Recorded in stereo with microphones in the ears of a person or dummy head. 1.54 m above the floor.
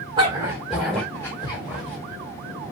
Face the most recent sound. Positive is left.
turn(degrees=35)  # may be behind; listen again after turning